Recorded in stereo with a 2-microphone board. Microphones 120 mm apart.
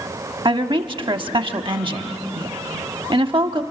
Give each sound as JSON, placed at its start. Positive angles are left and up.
{"t": 0.5, "sound": "a woman speaking", "side_deg": -40, "distance_m": 1.0}